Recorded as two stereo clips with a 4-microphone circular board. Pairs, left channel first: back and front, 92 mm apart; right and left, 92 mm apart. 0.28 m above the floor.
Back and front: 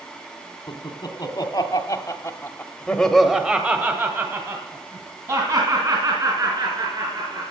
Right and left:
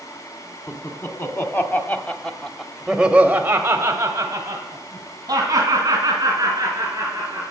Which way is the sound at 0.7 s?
145° right.